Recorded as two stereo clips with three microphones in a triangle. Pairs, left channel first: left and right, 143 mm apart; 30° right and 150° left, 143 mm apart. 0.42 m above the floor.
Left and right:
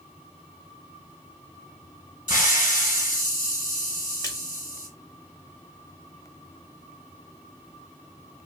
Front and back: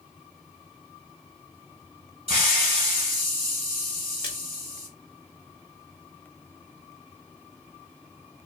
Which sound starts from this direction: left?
A hiss, at 2.3 s.